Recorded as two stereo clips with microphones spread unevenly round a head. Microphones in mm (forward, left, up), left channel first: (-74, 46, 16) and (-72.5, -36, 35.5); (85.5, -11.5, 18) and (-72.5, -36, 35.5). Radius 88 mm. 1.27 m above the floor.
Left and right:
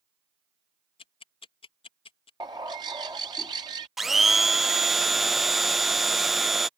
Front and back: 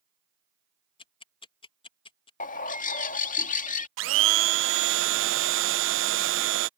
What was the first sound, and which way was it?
Ticking, 70° left.